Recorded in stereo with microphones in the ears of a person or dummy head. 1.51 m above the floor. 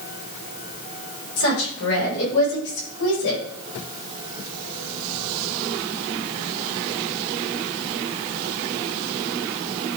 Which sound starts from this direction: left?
A woman speaking, at 1.4 s.